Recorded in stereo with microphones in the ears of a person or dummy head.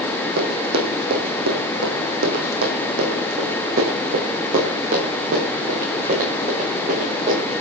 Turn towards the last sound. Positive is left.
turn(degrees=-45)  # may be behind; listen again after turning